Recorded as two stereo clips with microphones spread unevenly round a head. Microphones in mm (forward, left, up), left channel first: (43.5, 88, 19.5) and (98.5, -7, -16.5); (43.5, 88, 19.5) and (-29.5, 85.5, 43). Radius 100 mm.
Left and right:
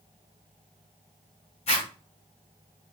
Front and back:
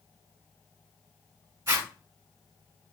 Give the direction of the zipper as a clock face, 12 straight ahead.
7 o'clock.